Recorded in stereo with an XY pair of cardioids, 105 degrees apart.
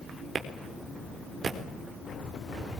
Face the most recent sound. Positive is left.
turn(degrees=-45)